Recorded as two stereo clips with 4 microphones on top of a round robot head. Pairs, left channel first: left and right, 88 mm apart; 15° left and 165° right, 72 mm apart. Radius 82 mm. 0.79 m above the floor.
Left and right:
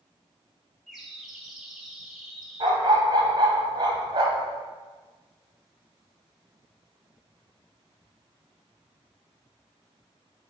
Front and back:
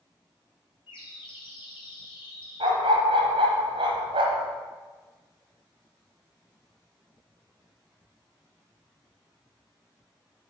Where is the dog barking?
145° right, 1.2 m.